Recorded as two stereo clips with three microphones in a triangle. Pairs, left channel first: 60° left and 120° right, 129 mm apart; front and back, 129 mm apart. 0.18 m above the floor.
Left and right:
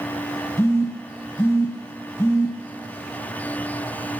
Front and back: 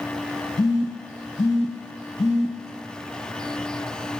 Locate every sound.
0.6 s a phone buzzing: straight ahead, 0.7 m